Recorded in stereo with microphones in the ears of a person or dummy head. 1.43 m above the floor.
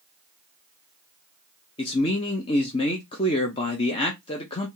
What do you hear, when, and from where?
1.8 s a man speaking: 30° left (ahead or behind), 0.7 m